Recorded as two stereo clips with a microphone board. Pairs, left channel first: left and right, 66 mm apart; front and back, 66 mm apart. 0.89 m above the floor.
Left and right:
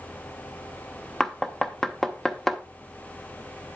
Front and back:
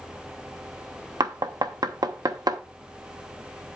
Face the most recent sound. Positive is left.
turn(degrees=175)